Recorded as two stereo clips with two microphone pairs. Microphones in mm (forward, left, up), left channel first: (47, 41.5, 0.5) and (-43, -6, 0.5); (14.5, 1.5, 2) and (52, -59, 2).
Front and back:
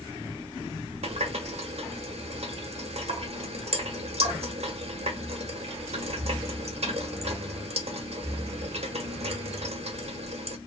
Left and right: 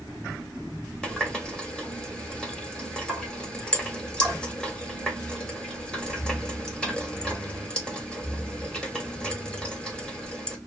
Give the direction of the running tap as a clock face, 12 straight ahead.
5 o'clock.